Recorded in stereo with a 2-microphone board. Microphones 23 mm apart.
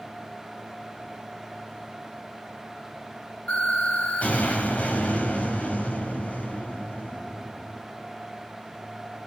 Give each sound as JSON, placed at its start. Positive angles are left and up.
{"t": 3.5, "sound": "an explosion", "side_deg": 85, "distance_m": 6.0}